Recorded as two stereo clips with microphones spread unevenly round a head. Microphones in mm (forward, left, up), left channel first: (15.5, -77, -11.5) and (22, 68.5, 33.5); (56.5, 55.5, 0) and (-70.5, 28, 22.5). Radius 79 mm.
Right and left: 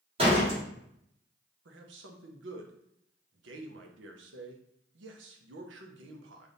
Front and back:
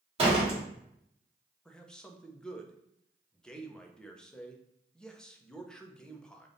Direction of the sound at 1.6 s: 90° left.